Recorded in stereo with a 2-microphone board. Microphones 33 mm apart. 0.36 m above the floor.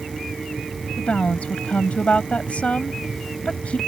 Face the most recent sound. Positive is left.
turn(degrees=40)  # may be behind; listen again after turning